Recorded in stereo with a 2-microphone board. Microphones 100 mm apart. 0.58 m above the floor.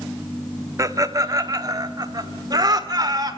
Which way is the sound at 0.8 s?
30° right (ahead or behind).